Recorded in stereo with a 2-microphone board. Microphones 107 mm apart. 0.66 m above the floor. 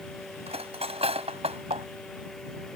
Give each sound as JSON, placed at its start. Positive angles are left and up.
{"t": 0.5, "sound": "cutlery clinking", "side_deg": -75}